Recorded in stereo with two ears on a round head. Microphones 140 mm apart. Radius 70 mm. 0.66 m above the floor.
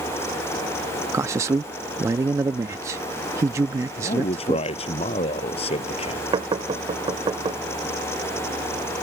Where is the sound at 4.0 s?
40° left (ahead or behind).